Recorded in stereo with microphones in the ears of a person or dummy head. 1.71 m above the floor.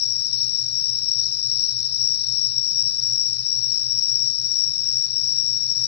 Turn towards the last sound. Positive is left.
turn(degrees=55)  # may be behind; listen again after turning